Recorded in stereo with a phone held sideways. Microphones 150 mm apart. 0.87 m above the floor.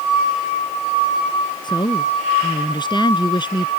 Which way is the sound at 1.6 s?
30° left (ahead or behind).